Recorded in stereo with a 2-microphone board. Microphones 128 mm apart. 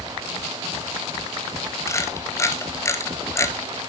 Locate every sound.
1.9 s a camera shutter: 25° left (ahead or behind), 1.1 m